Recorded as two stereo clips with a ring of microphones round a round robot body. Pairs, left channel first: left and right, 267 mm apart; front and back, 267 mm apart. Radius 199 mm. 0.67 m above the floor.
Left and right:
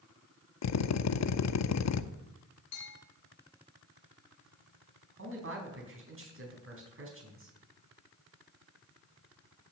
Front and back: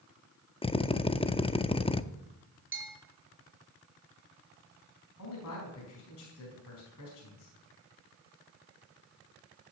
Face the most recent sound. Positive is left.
turn(degrees=-50)